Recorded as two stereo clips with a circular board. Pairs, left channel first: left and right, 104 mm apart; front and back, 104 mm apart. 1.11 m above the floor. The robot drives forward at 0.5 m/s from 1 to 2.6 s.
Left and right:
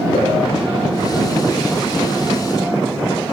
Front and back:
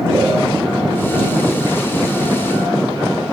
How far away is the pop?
About 6.5 m.